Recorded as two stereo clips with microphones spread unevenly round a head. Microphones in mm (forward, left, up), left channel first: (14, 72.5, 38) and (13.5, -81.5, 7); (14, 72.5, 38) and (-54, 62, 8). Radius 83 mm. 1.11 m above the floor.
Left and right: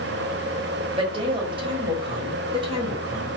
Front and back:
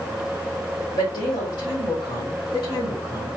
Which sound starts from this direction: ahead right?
A woman speaking, at 0.9 s.